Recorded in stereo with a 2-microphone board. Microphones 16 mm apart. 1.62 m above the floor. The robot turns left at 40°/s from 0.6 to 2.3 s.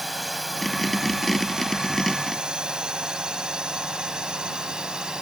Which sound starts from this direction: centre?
A drone, at 0.0 s.